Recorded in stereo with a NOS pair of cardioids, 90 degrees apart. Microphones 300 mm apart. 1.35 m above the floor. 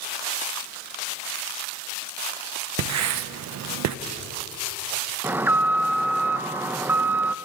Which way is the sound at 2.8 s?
65° right.